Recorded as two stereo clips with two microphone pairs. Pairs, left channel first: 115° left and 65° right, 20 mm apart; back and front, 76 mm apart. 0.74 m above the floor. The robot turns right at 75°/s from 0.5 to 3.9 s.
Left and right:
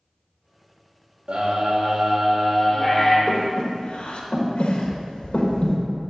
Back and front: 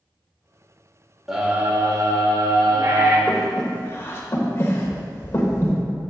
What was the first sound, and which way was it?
A scream, 85° right.